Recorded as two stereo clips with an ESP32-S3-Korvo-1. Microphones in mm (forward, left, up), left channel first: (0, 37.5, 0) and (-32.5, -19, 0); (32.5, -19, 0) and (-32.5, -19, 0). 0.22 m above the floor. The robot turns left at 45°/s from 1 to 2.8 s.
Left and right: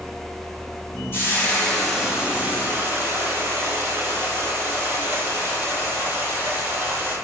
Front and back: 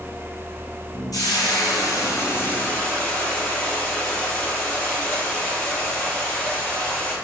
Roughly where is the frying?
Ahead.